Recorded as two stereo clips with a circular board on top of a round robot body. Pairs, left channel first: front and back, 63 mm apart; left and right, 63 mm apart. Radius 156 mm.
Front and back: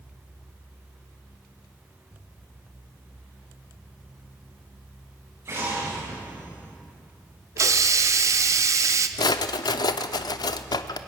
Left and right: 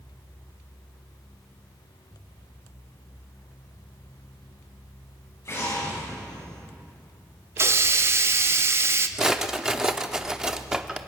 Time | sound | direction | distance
5.5 | an explosion | 135° left | 8.5 m
7.6 | a hiss | 140° right | 0.9 m
9.2 | a drawer | 10° right | 0.6 m